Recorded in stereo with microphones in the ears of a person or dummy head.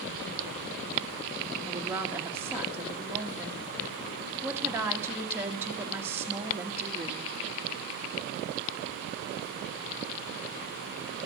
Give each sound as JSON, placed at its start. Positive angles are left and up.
{"t": 1.7, "sound": "a woman speaking", "side_deg": -5, "distance_m": 1.6}